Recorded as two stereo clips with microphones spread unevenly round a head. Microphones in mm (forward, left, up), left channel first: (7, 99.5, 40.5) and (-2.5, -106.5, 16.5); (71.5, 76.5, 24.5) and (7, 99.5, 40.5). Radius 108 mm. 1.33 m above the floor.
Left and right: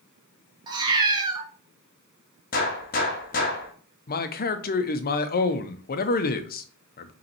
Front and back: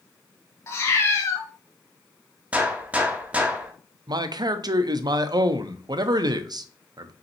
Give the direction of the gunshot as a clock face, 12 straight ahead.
8 o'clock.